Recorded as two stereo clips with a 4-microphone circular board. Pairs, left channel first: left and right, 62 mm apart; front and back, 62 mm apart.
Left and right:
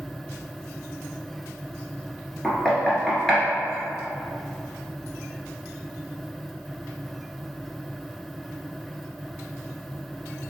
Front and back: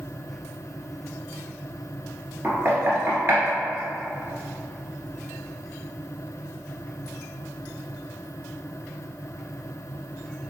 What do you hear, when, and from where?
2.4 s knocking: 170° left, 1.4 m